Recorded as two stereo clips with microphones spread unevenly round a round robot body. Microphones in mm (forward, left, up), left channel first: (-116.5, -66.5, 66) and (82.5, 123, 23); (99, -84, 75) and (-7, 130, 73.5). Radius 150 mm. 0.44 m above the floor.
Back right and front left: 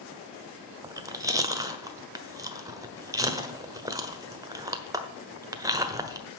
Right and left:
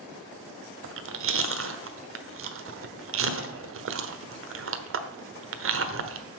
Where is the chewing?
115° left, 1.2 m.